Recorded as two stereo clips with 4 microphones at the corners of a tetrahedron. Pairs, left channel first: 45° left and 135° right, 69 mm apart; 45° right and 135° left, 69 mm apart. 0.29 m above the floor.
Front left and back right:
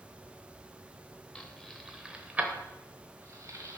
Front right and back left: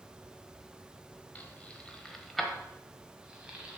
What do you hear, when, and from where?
1.4 s keys jangling: 15° right, 0.9 m; by 3.8 s 155° right, 1.3 m